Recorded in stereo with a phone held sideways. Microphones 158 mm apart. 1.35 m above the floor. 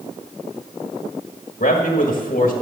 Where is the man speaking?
70° left (ahead or behind), 1.6 m.